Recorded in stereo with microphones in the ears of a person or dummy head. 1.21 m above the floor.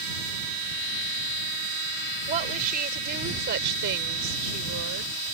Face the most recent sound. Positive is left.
turn(degrees=-85)